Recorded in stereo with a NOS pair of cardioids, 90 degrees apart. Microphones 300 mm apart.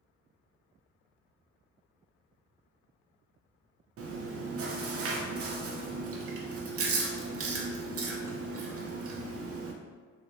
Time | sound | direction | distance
4.0 | chewing | 50° right | 0.6 m